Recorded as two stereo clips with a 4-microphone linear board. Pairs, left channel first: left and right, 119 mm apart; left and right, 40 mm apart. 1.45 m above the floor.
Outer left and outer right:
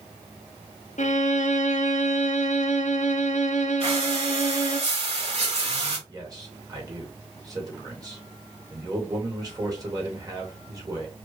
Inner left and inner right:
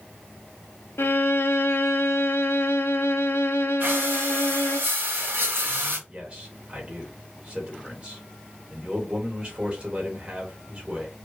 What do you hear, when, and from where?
1.0 s a violin: 80° left, 0.6 m
3.8 s breathing: 60° right (ahead or behind), 2 m
6.1 s a man speaking: 30° right (ahead or behind), 2.5 m